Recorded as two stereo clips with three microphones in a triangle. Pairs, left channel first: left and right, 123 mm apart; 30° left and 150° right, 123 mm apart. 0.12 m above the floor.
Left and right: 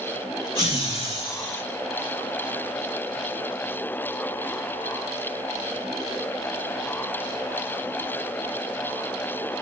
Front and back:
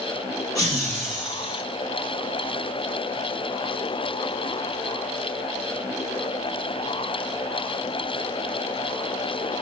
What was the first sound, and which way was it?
Laughter, 75° left.